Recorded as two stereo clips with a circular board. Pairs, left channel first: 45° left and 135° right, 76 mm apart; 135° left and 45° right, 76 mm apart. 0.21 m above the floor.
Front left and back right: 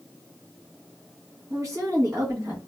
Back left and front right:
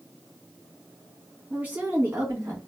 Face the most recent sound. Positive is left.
turn(degrees=-95)